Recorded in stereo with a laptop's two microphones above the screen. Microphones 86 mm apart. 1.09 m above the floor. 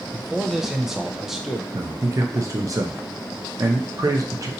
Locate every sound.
0.1 s a man speaking: 5° right (ahead or behind), 0.5 m
1.7 s a man speaking: 40° right (ahead or behind), 0.6 m